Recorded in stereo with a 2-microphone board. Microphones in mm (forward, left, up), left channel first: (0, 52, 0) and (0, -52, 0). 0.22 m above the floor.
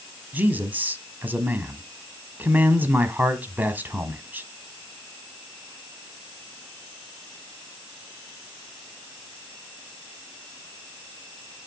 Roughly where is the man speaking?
Centre.